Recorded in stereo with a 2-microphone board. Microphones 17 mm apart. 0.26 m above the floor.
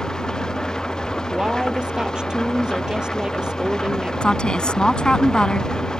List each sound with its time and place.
0.0 s an engine running: 35° left (ahead or behind)
1.3 s a woman speaking: 45° right (ahead or behind)
4.2 s a woman speaking: 55° left (ahead or behind)